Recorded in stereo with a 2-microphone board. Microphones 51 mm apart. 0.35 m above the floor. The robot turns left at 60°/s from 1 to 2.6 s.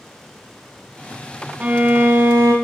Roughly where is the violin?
Ahead right.